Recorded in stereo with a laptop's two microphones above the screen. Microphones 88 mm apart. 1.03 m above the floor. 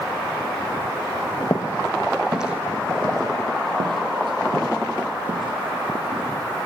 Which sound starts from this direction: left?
Footsteps, at 1.4 s.